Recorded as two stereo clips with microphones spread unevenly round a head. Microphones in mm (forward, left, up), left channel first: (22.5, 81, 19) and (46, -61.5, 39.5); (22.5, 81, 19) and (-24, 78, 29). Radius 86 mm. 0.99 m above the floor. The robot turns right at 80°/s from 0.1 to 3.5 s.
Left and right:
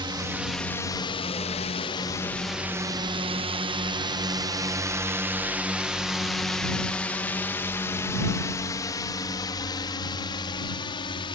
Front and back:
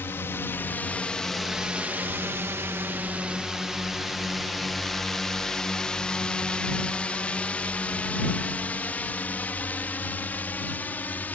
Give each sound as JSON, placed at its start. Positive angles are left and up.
{"t": 0.0, "sound": "a drone", "azimuth_deg": -25}